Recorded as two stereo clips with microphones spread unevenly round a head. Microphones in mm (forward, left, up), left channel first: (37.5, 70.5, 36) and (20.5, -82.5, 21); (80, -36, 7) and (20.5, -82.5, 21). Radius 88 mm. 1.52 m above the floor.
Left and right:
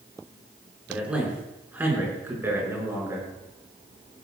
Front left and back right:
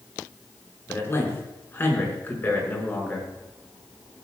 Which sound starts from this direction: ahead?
A man speaking, at 0.9 s.